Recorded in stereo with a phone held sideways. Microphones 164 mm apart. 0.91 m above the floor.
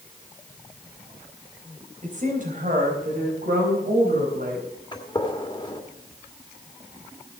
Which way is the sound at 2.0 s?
50° right (ahead or behind).